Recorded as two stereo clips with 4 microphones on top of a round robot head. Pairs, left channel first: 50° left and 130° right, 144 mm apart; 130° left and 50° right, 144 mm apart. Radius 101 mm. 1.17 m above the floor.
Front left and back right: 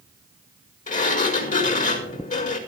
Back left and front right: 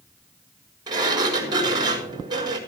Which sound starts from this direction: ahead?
A sliding door, at 0.9 s.